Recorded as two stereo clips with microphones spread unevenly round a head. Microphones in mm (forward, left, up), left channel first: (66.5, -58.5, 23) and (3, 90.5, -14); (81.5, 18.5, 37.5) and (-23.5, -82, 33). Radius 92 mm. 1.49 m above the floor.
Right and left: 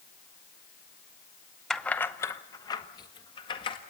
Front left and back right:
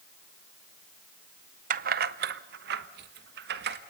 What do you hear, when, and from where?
1.7 s keys jangling: 140° right, 0.6 m; by 3.8 s 130° right, 1.7 m